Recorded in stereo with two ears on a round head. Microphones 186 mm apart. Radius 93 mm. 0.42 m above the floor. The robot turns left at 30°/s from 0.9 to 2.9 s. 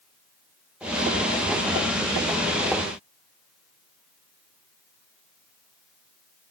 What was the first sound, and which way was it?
Only background noise.